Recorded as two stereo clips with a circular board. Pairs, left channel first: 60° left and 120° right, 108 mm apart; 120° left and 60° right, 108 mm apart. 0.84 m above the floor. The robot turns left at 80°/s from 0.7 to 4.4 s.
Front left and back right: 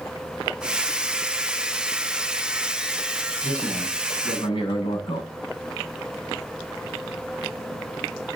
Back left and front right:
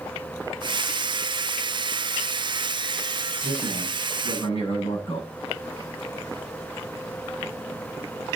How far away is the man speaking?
About 7.5 m.